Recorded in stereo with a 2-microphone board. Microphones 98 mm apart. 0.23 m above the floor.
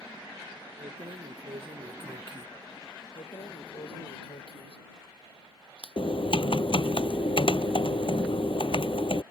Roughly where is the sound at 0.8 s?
Right.